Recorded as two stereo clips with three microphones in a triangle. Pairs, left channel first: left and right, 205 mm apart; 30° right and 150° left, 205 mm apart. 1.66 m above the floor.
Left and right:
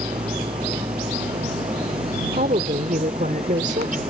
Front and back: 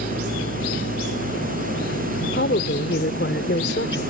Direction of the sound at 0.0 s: 30° right.